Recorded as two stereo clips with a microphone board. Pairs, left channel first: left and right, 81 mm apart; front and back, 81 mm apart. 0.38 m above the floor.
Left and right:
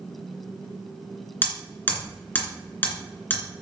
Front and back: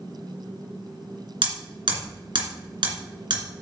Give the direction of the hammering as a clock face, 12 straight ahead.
7 o'clock.